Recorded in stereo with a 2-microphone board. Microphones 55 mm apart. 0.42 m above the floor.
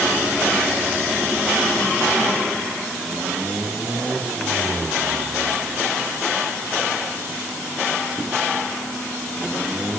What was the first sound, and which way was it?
Only background noise.